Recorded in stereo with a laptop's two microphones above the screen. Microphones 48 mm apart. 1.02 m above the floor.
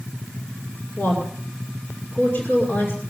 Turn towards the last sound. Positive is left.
turn(degrees=45)  # may be behind; listen again after turning